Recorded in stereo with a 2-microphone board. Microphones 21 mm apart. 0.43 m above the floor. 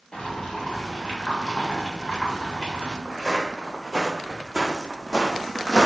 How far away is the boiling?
About 1.1 m.